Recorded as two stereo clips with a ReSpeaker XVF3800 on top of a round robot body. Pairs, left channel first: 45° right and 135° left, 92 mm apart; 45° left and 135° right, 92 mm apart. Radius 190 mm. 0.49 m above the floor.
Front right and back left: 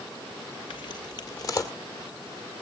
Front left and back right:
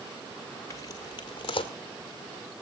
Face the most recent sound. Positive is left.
turn(degrees=15)